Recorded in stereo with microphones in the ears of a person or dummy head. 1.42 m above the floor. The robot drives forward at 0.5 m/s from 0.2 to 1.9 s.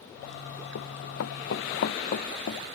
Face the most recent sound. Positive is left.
turn(degrees=50)  # may be behind; listen again after turning